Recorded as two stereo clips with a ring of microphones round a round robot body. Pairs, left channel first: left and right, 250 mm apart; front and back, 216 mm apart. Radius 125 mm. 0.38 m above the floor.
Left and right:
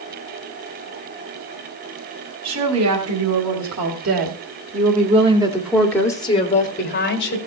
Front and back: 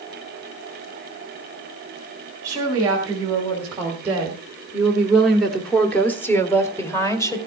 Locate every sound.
2.4 s a woman speaking: 100° right, 3 m; by 7.4 s 70° left, 1.9 m